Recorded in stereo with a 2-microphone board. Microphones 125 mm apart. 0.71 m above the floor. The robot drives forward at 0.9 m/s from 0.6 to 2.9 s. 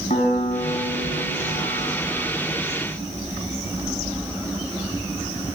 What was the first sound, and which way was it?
A piano, 75° left (ahead or behind).